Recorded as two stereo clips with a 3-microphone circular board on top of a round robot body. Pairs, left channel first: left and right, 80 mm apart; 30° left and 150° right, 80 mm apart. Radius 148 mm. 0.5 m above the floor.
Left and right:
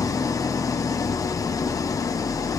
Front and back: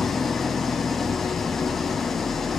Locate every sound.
0.0 s an engine running: 115° left, 1.4 m